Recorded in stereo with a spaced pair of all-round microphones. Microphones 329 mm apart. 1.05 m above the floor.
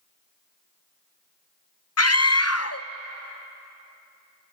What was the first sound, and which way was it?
A scream, 50° left (ahead or behind).